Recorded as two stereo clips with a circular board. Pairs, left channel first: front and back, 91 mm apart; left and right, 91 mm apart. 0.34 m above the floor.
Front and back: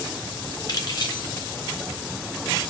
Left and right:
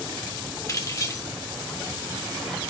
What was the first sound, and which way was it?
Keys jangling, 40° left.